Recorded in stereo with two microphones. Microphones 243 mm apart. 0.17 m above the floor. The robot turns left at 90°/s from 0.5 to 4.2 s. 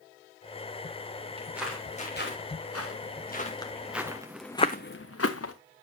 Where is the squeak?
No squeak in this recording.